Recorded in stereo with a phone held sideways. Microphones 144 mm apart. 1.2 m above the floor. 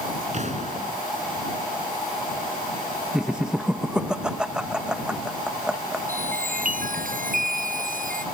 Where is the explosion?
55° right (ahead or behind).